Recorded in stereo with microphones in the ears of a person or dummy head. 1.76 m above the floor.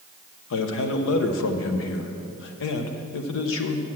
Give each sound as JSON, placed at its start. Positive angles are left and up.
{"t": 0.5, "sound": "a man speaking", "side_deg": 75, "distance_m": 0.7}